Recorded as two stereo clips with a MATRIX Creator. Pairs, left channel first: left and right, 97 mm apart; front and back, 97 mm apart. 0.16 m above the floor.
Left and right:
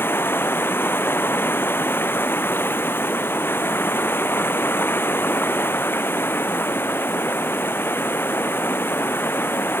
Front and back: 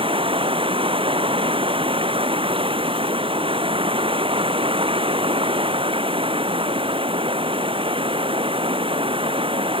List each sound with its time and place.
0.0 s running water: 155° left